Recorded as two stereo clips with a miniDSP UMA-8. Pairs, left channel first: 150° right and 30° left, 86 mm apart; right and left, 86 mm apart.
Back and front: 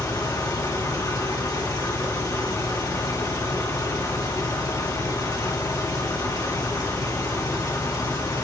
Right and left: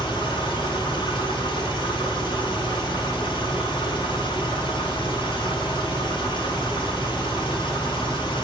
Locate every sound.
0.0 s an engine running: 105° right, 3.5 m